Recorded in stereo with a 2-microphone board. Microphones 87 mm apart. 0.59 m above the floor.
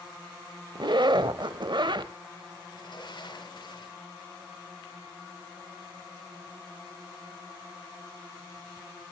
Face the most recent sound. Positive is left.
turn(degrees=60)  # may be behind; listen again after turning